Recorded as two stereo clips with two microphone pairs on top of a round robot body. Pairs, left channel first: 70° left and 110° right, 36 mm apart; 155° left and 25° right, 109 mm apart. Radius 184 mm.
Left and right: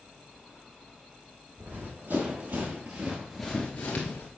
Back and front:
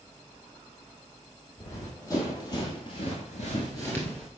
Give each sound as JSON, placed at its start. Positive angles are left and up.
{"t": 1.6, "sound": "running footsteps", "azimuth_deg": -135, "distance_m": 3.0}